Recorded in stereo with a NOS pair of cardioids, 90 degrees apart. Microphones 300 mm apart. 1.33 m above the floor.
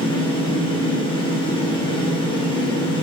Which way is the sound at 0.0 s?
15° left.